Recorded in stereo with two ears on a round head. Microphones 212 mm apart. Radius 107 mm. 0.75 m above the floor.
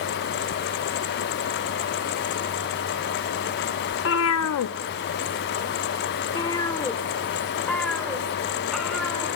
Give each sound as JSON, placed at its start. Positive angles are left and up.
{"t": 3.9, "sound": "a cat meowing", "side_deg": 50, "distance_m": 0.8}